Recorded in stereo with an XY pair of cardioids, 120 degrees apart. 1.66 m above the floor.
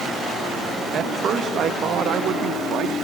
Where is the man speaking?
50° right; by 2.9 s 65° right.